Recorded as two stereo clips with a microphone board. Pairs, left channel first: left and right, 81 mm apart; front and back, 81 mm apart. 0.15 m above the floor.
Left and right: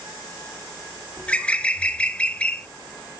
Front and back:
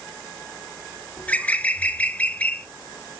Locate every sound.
1.2 s a bird: 40° left, 0.6 m